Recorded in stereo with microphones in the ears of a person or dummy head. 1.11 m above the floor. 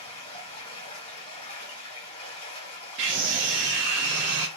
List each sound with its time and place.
0.0 s running water: 30° left (ahead or behind), 2 m
3.0 s a scream: 60° right (ahead or behind), 0.5 m